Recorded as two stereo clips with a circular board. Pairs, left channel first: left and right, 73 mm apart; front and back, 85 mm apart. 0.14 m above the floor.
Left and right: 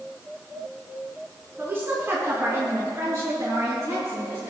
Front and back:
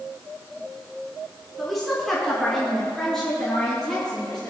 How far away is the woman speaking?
About 1.8 m.